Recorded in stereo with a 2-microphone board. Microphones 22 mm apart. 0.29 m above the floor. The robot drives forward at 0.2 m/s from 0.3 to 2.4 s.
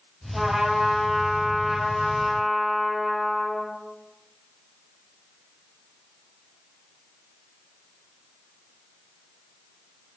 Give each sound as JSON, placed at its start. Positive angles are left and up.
{"t": 0.3, "sound": "a trumpet", "side_deg": -20, "distance_m": 1.2}